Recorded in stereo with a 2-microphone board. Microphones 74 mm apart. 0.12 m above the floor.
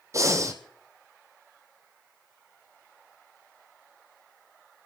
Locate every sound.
0.1 s breathing: 45° right (ahead or behind), 1.7 m